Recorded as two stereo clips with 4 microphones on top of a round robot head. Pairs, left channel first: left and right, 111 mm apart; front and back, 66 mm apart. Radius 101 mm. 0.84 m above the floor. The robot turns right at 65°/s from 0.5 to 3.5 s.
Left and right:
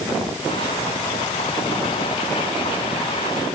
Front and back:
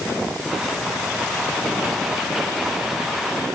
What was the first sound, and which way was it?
Only background noise.